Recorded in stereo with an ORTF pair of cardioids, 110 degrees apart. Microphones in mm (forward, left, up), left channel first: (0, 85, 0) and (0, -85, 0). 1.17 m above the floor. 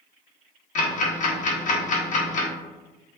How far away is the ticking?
About 0.8 m.